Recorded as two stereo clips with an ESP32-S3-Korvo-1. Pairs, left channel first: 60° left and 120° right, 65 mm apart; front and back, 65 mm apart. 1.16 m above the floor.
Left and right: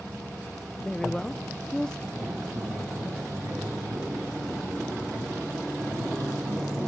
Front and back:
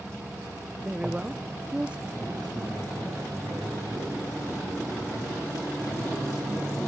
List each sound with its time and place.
0.8 s a woman speaking: 125° left, 0.5 m
2.1 s a man speaking: 155° right, 8.5 m